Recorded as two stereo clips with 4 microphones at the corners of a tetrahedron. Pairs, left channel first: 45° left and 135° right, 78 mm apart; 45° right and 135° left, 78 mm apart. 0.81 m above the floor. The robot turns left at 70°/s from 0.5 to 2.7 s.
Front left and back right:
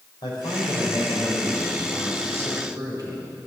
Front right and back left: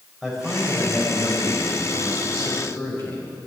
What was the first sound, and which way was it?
A man speaking, 55° left.